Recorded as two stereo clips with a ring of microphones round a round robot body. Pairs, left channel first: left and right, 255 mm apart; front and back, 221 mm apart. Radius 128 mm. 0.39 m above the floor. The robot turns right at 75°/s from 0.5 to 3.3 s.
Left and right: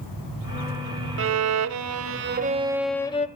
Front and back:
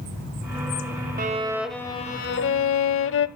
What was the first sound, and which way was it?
A violin, 125° right.